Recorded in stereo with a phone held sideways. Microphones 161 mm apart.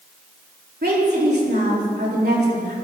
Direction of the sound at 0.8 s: 80° right.